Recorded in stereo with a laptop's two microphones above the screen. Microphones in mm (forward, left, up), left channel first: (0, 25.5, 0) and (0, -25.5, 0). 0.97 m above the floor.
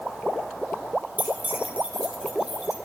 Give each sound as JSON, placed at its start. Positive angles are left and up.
{"t": 1.2, "sound": "keys jangling", "side_deg": -35, "distance_m": 1.5}